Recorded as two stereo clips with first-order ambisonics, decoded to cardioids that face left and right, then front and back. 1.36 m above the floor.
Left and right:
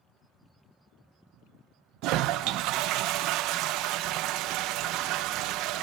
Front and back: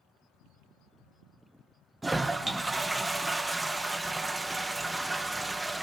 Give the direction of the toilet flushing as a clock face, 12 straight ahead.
3 o'clock.